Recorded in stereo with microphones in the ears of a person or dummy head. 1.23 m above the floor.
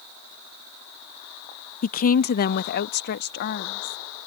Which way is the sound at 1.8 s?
45° left (ahead or behind).